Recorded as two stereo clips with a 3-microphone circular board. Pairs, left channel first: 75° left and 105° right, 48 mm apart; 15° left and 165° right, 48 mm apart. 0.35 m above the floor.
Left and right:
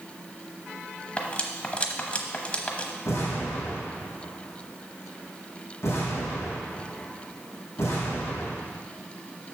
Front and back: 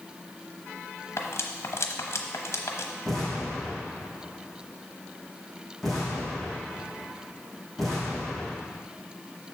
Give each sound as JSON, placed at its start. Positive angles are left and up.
{"t": 1.2, "sound": "cutlery clinking", "azimuth_deg": 15, "distance_m": 1.0}
{"t": 3.0, "sound": "an explosion", "azimuth_deg": 100, "distance_m": 3.5}